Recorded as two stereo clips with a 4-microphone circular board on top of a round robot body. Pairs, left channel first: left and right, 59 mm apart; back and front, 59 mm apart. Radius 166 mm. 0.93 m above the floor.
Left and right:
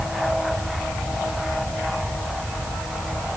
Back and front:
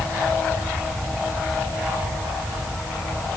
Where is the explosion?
No explosion in this recording.